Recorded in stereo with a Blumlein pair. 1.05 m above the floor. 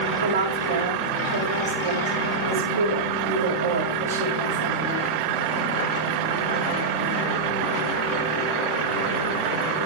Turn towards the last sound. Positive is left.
turn(degrees=-60)